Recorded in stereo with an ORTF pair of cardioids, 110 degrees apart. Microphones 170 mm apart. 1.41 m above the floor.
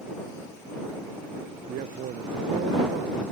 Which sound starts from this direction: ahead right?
A man speaking, at 1.7 s.